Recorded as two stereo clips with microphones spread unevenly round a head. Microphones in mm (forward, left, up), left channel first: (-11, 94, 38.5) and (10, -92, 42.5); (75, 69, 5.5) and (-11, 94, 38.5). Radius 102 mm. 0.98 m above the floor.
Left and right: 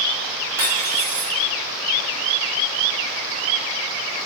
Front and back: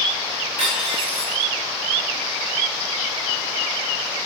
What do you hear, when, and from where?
0.6 s cutlery clinking: 160° right, 3.5 m